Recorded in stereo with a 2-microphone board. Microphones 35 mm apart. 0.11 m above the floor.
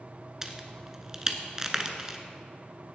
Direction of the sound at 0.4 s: 15° right (ahead or behind).